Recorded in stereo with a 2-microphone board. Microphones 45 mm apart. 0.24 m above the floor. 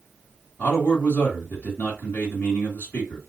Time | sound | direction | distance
0.6 | a man speaking | 35° left (ahead or behind) | 1.9 m